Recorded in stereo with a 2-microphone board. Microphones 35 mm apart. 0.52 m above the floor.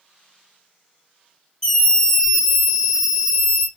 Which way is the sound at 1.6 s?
15° left (ahead or behind).